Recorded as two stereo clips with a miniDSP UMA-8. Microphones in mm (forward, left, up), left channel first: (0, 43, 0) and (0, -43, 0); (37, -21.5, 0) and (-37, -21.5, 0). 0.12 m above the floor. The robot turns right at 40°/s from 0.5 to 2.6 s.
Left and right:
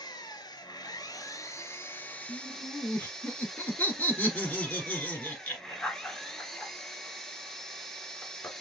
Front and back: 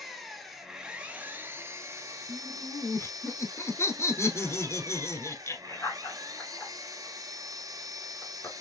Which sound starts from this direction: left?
An engine running, at 0.0 s.